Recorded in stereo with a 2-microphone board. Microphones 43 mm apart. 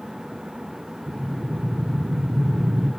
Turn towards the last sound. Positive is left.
turn(degrees=-60)  # may be behind; listen again after turning